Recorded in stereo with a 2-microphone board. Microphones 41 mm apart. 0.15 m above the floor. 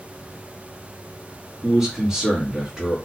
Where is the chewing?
I don't hear chewing.